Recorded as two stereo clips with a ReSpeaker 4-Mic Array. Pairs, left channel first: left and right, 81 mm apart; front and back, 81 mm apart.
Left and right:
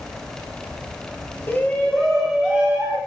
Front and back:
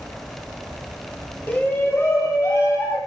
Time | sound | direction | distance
1.5 | a shout | 55° left | 1.8 m